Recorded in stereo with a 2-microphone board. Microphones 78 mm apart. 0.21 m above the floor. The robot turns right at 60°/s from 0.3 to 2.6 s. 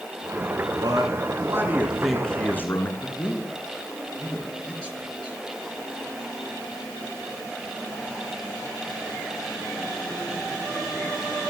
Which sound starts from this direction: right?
A man speaking, at 0.8 s.